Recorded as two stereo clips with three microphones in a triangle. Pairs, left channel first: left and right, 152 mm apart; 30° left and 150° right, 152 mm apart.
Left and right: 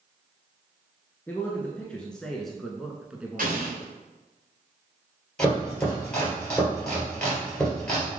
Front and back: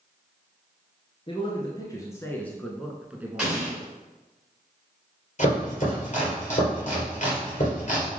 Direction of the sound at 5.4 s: 10° left.